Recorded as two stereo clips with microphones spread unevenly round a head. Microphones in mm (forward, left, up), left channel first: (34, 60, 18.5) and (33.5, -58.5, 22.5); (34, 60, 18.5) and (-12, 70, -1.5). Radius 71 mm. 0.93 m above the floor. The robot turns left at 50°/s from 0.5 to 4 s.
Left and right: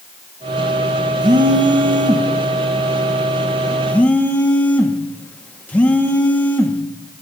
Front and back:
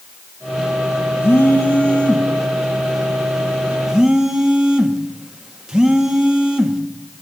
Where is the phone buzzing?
65° right, 0.8 m; by 6.8 s 155° left, 0.8 m.